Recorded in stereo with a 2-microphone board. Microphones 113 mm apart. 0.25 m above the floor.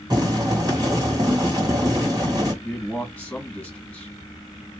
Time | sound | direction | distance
0.1 | boiling | 35° right (ahead or behind) | 2 m
2.6 | a man speaking | 15° left (ahead or behind) | 1.8 m